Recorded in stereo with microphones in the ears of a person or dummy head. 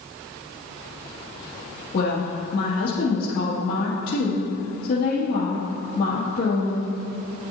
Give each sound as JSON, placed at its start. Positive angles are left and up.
{"t": 1.9, "sound": "a woman speaking", "side_deg": 60, "distance_m": 1.9}